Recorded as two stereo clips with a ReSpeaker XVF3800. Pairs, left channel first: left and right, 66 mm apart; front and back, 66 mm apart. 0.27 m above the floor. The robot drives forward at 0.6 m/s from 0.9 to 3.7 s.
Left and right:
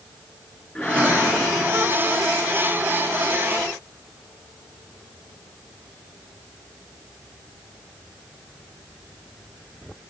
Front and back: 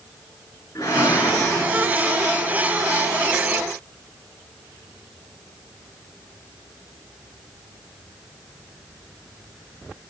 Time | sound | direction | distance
0.8 | a whoosh | 15° left | 3.5 m